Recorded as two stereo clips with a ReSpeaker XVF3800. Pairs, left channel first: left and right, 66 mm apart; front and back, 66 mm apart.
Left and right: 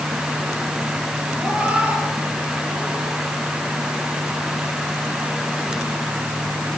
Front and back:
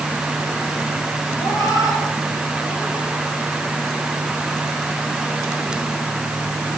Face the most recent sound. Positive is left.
turn(degrees=-40)